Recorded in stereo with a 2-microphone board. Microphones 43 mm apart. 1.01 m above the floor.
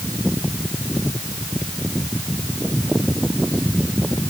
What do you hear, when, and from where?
Only background noise.